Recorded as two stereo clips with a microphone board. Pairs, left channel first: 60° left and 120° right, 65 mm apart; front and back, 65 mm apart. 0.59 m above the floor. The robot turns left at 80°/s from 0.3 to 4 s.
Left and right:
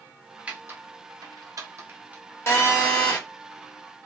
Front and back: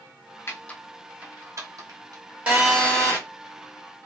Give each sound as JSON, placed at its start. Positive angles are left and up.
{"t": 0.5, "sound": "typing on a keyboard", "azimuth_deg": -55, "distance_m": 0.7}
{"t": 2.5, "sound": "a phone buzzing", "azimuth_deg": 110, "distance_m": 1.1}